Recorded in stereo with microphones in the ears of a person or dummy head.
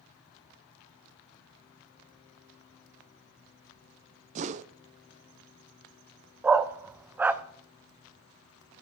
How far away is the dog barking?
About 0.6 m.